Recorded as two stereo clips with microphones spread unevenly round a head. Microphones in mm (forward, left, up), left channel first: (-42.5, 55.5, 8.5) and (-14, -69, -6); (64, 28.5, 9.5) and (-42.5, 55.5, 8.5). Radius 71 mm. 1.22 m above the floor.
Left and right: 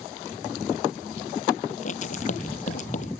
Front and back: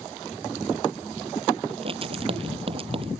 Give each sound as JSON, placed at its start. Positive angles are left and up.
{"t": 1.7, "sound": "writing", "azimuth_deg": 130}